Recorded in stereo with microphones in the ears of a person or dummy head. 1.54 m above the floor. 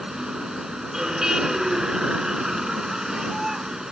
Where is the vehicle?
5° right (ahead or behind).